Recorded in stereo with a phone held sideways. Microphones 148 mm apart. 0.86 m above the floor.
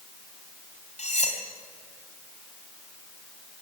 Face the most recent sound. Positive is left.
turn(degrees=50)  # may be behind; listen again after turning